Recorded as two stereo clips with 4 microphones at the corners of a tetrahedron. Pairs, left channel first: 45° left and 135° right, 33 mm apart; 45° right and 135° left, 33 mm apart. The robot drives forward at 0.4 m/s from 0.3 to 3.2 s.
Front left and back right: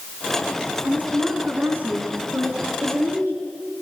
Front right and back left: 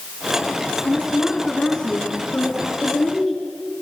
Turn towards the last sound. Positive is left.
turn(degrees=-105)